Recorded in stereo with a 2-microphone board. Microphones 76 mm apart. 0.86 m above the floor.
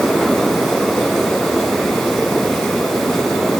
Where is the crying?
I don't hear crying.